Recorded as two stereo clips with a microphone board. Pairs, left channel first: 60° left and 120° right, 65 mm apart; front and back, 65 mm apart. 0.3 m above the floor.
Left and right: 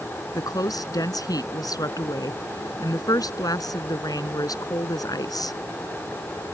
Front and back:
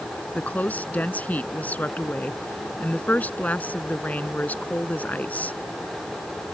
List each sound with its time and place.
0.3 s a woman speaking: 65° left